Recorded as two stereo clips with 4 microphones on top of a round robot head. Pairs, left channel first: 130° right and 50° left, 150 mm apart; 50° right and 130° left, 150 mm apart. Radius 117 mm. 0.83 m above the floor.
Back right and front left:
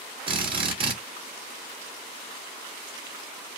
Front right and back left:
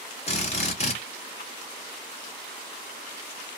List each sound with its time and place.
0.3 s a drill: 5° right, 2 m